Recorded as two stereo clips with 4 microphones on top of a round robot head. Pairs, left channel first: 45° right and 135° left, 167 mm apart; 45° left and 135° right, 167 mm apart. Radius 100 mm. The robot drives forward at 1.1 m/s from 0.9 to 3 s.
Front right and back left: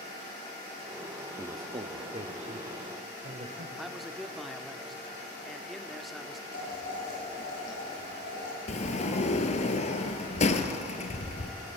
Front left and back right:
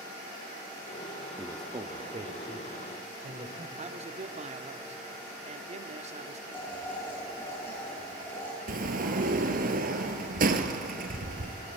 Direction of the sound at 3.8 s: 135° right.